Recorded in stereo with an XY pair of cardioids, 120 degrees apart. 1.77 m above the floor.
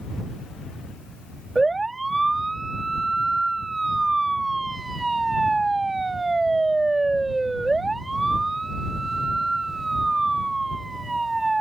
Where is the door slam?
I don't hear a door slam.